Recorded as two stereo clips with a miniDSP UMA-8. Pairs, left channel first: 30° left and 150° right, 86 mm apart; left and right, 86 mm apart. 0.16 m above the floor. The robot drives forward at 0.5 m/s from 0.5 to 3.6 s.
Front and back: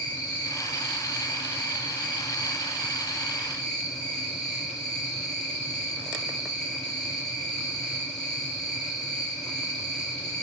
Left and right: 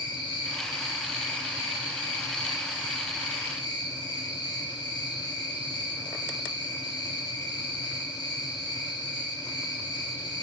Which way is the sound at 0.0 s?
90° left.